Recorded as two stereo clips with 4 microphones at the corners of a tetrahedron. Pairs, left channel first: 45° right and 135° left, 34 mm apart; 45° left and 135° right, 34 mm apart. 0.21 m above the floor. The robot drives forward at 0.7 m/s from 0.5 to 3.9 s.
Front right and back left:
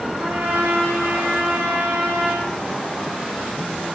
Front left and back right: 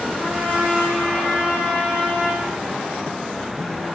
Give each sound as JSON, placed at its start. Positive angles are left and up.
{"t": 0.2, "sound": "a trumpet", "azimuth_deg": 170, "distance_m": 8.0}